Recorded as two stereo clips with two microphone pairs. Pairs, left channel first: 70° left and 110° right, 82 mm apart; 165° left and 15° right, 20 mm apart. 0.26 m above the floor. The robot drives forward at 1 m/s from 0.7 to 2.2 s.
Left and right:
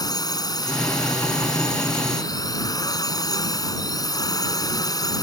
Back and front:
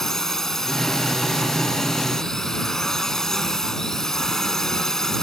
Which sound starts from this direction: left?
A drone, at 0.0 s.